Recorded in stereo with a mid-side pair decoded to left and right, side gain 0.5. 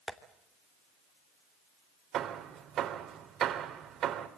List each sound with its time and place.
0.1 s tapping: 15° left, 2.5 m
2.1 s hammering: 60° right, 2.5 m